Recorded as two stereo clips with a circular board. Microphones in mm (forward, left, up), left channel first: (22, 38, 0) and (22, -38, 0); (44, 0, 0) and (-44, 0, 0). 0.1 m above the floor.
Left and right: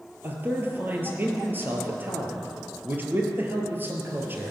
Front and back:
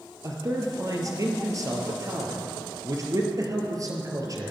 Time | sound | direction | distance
0.2 | a man speaking | 145° right | 2 m